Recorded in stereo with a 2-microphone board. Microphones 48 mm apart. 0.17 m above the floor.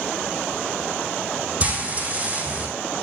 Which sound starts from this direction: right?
Frying, at 1.6 s.